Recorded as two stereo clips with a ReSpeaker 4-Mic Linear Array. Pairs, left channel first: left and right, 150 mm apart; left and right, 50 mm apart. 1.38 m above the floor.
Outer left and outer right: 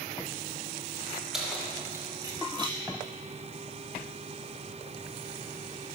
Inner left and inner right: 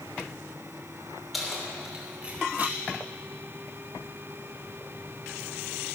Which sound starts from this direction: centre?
Keys jangling, at 1.3 s.